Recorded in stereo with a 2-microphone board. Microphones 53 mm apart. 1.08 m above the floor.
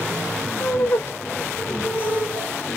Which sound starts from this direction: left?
Laughter, at 0.6 s.